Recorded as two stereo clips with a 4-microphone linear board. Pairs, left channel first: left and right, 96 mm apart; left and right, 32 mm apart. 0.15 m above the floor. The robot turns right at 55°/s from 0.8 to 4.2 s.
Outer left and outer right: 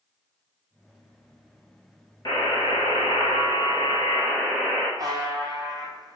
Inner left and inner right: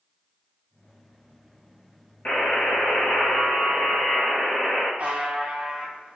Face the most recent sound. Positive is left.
turn(degrees=-40)  # may be behind; listen again after turning